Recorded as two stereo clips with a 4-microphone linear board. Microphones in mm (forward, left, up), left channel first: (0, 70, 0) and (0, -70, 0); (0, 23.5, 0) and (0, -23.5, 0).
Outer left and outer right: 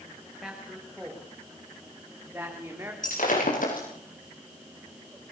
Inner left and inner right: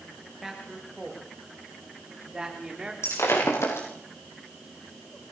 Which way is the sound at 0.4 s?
5° right (ahead or behind).